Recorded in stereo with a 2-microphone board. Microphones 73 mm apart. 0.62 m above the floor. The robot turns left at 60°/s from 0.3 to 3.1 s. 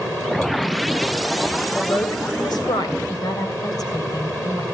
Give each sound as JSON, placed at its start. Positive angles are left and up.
{"t": 1.8, "sound": "a man speaking", "azimuth_deg": 145, "distance_m": 3.0}
{"t": 3.1, "sound": "a woman speaking", "side_deg": 65, "distance_m": 3.5}